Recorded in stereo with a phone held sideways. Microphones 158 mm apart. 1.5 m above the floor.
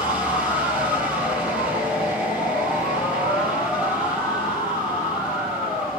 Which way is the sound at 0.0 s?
10° right (ahead or behind).